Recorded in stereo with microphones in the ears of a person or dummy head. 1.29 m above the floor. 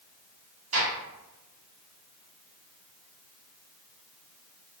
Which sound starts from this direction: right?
A gunshot, at 0.7 s.